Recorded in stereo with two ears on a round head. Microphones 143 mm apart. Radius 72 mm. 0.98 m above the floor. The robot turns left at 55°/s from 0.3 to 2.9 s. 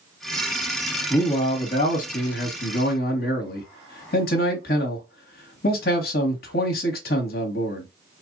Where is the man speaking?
165° left, 1.0 m; by 7.9 s 70° left, 1.0 m.